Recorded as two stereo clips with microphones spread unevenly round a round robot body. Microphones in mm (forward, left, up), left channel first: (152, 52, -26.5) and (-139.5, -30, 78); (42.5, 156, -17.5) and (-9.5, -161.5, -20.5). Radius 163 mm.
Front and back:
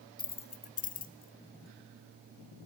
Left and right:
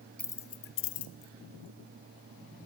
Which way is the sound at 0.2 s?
5° right.